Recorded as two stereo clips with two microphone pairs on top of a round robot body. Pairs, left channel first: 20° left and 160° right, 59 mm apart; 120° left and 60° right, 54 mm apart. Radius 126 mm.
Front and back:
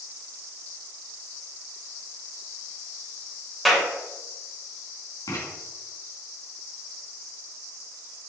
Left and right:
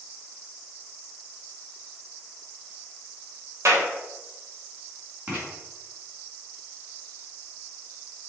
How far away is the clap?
About 3 m.